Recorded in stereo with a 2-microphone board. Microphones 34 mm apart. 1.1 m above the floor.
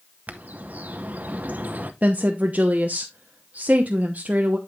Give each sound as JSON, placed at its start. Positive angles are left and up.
{"t": 0.3, "sound": "a bird", "side_deg": -50, "distance_m": 0.8}
{"t": 2.0, "sound": "a woman speaking", "side_deg": -45, "distance_m": 0.9}